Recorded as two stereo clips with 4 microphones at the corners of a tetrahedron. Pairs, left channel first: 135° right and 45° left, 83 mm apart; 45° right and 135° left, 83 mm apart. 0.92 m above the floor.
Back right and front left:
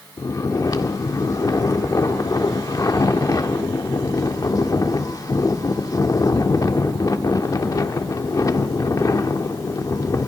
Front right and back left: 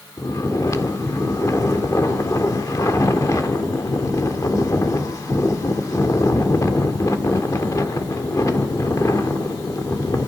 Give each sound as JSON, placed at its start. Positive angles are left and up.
{"t": 0.2, "sound": "snoring", "azimuth_deg": -90, "distance_m": 1.5}